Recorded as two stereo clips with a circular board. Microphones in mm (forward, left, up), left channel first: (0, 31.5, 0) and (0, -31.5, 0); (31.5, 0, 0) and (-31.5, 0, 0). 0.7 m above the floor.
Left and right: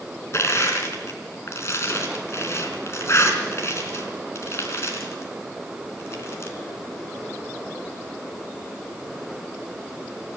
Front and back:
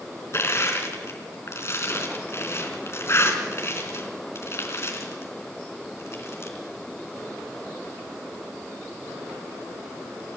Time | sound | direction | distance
0.3 | crushing | 45° left | 4 m